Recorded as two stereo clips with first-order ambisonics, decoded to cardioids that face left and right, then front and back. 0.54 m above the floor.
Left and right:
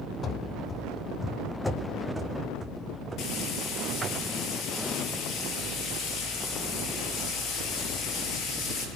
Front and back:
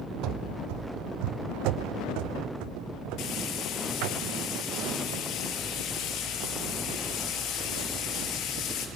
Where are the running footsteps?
150° left, 1.2 m; by 4.2 s 165° right, 3 m.